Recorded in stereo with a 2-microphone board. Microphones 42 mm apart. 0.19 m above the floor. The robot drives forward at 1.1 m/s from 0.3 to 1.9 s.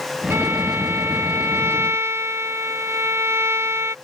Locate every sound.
0.3 s a violin: 80° right; by 4.0 s 90° right